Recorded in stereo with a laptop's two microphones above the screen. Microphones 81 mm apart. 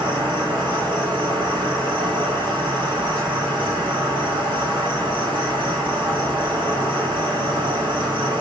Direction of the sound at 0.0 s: 85° right.